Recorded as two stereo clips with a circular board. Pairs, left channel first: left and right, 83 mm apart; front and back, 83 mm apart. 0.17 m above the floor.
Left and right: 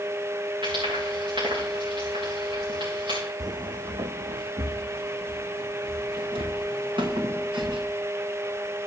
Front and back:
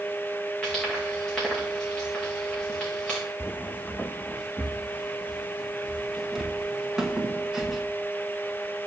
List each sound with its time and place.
0.6 s frying: 75° right, 5.5 m
3.4 s footsteps: 60° right, 0.5 m; by 7.8 s 95° right, 3 m